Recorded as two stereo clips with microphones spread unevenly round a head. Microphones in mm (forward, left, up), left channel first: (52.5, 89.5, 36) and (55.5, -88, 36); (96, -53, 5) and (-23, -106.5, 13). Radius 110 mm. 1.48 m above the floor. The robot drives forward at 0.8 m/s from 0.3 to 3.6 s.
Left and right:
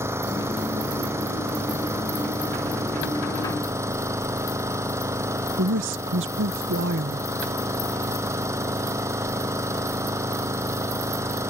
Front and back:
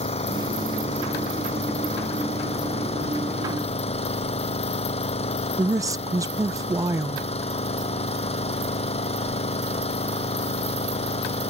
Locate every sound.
0.0 s an engine running: 15° right
5.6 s a woman speaking: 95° right